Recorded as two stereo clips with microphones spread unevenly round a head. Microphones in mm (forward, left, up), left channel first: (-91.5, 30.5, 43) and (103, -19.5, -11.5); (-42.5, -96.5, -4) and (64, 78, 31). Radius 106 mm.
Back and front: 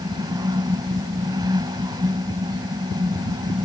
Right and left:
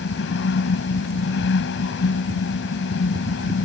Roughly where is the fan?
Right.